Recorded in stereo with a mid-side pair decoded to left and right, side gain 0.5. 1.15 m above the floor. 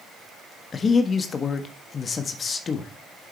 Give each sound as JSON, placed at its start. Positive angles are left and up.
{"t": 0.7, "sound": "a man speaking", "azimuth_deg": 35, "distance_m": 1.5}